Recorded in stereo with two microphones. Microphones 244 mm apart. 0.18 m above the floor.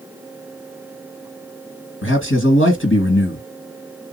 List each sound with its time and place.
2.0 s a man speaking: 55° left (ahead or behind), 2.5 m